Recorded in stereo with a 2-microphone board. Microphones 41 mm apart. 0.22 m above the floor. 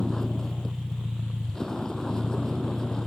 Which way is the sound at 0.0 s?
15° left (ahead or behind).